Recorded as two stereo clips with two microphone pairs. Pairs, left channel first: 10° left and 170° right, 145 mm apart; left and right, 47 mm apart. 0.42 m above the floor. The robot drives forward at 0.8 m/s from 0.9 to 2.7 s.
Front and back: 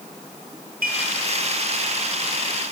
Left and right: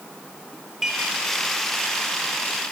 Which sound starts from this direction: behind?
Dishes clattering, at 0.8 s.